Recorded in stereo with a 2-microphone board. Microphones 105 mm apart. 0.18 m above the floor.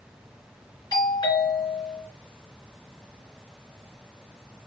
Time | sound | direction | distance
0.9 | a doorbell | 45° left (ahead or behind) | 3 m